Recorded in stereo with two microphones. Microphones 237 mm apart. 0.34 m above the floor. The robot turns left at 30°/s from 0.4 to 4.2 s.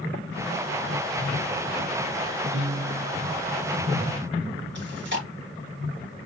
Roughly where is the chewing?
Right.